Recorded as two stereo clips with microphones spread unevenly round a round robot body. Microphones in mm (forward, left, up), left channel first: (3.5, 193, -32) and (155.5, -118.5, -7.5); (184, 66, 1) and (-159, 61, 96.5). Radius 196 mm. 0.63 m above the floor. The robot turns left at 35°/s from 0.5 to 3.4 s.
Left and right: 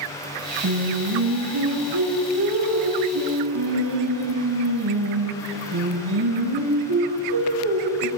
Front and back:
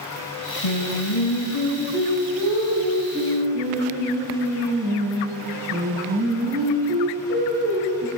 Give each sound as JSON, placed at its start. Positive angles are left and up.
{"t": 0.6, "sound": "singing", "azimuth_deg": -15, "distance_m": 5.0}